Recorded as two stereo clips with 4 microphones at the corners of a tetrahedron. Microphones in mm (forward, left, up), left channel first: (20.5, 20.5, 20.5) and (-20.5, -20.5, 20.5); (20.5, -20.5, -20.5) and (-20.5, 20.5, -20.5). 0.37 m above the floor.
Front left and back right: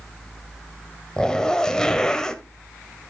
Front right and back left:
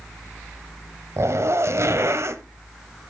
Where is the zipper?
120° left, 0.9 m.